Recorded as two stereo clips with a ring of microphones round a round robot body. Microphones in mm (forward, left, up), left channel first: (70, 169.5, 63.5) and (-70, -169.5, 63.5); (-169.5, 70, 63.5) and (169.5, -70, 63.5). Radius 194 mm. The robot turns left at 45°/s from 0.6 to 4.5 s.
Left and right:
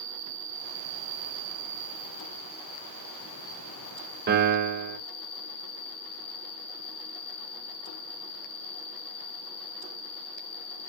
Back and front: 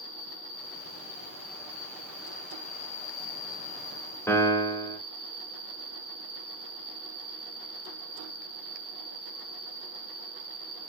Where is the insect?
70° right, 1.3 m; by 10.9 s 115° left, 1.3 m.